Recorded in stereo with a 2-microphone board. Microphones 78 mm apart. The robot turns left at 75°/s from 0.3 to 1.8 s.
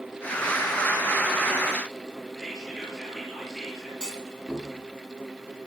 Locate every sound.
2.4 s whispering: 5° right (ahead or behind), 4.5 m
4.0 s a clunk: 10° right (ahead or behind), 3 m